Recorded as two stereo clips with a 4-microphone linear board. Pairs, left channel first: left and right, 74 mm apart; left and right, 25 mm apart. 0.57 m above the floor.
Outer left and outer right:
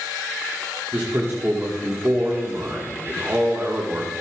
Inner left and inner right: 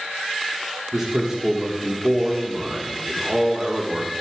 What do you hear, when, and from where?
0.9 s a man speaking: 30° right (ahead or behind), 1.7 m